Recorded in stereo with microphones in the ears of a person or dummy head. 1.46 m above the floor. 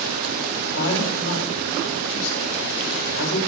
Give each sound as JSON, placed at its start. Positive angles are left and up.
{"t": 0.6, "sound": "a man speaking", "side_deg": 80, "distance_m": 7.5}